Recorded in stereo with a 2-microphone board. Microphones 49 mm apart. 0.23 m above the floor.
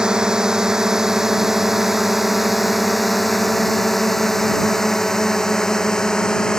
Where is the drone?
15° right (ahead or behind); by 6.6 s 15° left (ahead or behind).